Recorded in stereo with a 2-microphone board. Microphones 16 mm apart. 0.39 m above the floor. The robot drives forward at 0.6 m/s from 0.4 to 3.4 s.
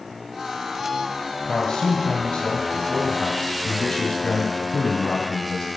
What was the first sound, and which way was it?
A man speaking, 55° left (ahead or behind).